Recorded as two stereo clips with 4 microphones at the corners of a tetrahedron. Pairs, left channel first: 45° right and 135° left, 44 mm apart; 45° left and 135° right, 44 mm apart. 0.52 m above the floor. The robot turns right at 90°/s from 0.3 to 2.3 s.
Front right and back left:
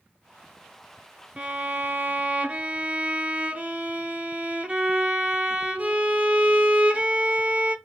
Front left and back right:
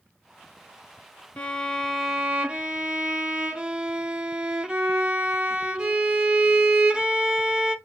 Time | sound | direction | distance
1.4 | a violin | 85° left | 0.5 m